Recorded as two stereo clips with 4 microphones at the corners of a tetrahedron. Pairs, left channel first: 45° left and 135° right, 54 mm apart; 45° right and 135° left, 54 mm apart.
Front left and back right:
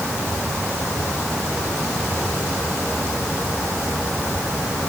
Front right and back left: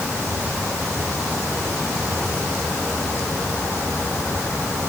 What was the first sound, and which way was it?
Only background noise.